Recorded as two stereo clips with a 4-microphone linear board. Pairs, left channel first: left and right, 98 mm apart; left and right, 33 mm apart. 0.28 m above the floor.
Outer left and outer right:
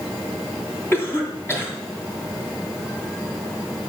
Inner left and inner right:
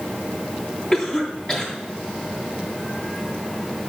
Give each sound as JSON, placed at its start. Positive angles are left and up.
{"t": 0.9, "sound": "a cough", "side_deg": 25, "distance_m": 3.0}